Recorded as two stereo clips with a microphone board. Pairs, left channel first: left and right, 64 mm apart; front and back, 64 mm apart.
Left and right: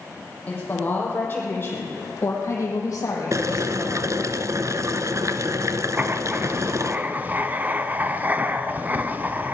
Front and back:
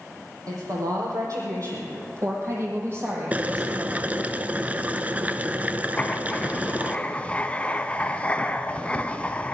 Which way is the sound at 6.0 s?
55° right.